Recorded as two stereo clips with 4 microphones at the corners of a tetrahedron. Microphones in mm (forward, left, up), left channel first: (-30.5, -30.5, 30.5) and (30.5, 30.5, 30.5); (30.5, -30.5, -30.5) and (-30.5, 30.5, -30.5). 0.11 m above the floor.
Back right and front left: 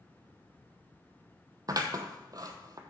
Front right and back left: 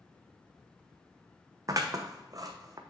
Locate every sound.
1.7 s scissors: 90° left, 0.9 m